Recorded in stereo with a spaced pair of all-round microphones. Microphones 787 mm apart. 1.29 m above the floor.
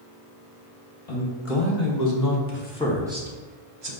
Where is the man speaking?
45° left (ahead or behind), 1.5 m; by 3.9 s 35° right (ahead or behind), 0.9 m.